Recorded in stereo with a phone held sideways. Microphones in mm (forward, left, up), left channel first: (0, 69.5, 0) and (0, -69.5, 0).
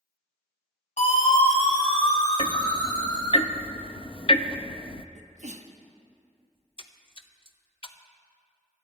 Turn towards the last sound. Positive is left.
turn(degrees=40)  # may be behind; listen again after turning